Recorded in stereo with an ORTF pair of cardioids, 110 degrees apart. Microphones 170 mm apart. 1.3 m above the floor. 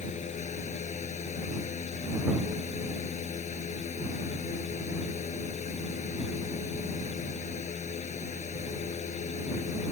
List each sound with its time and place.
0.0 s a fan: 40° left